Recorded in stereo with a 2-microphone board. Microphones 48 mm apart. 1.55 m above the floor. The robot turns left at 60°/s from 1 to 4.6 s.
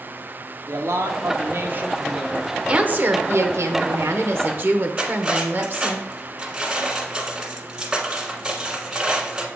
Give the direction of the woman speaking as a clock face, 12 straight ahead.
1 o'clock.